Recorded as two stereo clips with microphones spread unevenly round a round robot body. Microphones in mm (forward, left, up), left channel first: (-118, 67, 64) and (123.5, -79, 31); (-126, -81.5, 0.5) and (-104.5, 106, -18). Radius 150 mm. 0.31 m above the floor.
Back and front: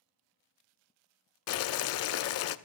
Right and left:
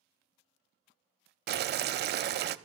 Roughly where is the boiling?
Left.